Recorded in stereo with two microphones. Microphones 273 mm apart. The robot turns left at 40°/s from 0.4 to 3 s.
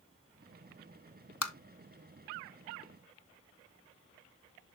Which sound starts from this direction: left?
Tapping, at 1.4 s.